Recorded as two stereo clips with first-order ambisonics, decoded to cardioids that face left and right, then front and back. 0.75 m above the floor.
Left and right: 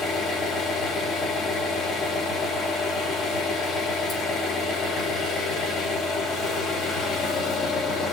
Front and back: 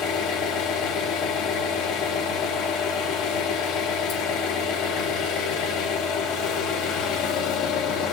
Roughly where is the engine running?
Ahead left.